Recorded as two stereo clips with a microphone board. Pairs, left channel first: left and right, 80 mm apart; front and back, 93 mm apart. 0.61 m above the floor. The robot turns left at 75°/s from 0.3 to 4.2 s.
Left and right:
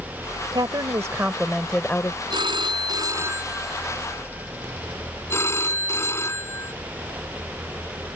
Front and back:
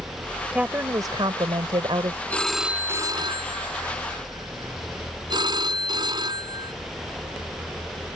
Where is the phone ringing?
70° right; by 6.7 s 145° left.